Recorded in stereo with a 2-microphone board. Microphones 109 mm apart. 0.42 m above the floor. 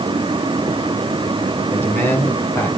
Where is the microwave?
No microwave in this recording.